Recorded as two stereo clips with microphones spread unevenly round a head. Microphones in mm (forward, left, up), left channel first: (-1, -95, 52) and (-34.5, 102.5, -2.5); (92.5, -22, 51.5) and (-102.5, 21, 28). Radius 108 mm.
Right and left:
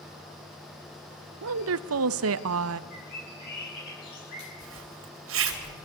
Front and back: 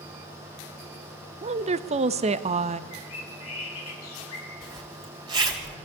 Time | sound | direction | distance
1.4 | a woman speaking | 105° left | 1.0 m
2.9 | a bird | 35° right | 7.5 m
4.6 | a zipper | 95° left | 3.5 m